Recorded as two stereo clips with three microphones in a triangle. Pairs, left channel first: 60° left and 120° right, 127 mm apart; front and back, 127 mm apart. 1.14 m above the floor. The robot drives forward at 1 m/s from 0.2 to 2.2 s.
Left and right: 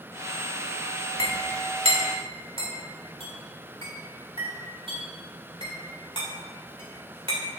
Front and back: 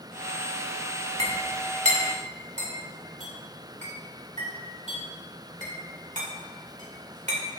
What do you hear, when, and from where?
1.2 s a clink: 150° right, 1.4 m; by 7.6 s 165° right, 2.5 m